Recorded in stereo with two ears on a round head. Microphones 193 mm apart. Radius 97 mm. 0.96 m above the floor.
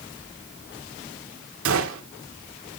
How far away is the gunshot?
About 2.0 m.